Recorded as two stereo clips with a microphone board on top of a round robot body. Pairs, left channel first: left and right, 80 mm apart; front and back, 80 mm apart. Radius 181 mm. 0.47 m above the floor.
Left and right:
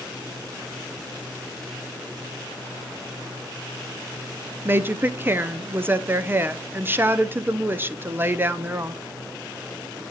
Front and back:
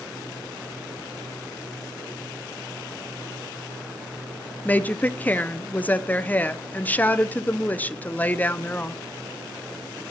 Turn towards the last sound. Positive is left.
turn(degrees=-50)